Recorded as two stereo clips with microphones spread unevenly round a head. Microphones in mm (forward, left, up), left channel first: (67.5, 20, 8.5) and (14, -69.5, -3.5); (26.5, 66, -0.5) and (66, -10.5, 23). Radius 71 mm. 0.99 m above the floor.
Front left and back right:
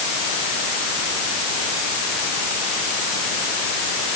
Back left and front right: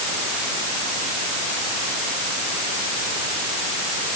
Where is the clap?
No clap in this recording.